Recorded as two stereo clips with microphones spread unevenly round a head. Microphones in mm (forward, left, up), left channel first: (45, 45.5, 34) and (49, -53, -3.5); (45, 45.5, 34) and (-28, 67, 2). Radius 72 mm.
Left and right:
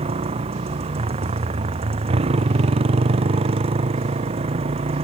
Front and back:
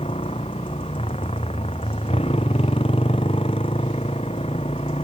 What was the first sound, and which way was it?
A motorcycle, 70° right.